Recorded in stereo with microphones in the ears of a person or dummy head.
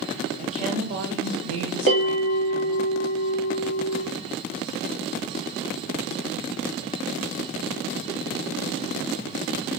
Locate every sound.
0.4 s a woman speaking: 30° right (ahead or behind), 1.1 m; by 2.9 s 60° right (ahead or behind), 1.9 m
1.9 s a bell: 45° right (ahead or behind), 2 m